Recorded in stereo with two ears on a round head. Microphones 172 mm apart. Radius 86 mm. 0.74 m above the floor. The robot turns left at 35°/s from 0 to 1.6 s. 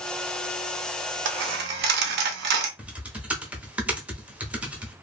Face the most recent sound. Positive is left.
turn(degrees=-5)  # may be behind; listen again after turning